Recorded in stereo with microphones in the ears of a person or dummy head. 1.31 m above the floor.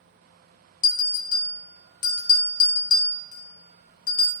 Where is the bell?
50° left (ahead or behind), 0.7 m.